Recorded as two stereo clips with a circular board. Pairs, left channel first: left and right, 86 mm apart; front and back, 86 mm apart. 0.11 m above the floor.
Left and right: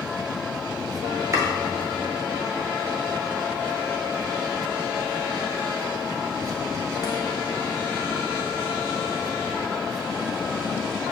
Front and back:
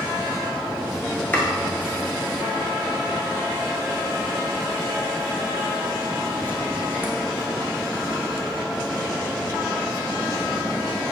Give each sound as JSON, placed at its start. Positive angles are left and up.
{"t": 1.3, "sound": "chopping", "azimuth_deg": -55, "distance_m": 0.9}